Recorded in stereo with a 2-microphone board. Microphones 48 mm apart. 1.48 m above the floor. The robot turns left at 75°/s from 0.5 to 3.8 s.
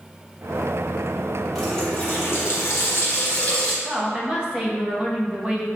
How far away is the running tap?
About 1.4 m.